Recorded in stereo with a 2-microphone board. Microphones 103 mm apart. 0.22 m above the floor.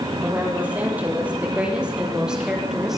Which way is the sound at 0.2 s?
15° right (ahead or behind).